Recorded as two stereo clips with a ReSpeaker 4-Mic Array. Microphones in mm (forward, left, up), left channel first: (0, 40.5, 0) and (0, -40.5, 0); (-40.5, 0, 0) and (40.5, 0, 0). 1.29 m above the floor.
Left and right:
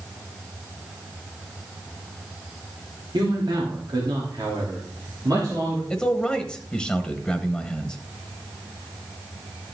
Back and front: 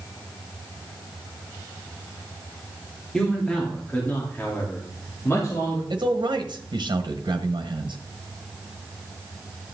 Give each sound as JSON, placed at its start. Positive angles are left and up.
{"t": 3.1, "sound": "a man speaking", "azimuth_deg": -100, "distance_m": 3.0}
{"t": 5.9, "sound": "a man speaking", "azimuth_deg": 5, "distance_m": 1.2}